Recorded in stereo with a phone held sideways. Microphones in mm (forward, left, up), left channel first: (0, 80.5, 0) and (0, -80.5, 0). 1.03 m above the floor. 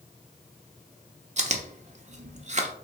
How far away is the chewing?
About 0.5 m.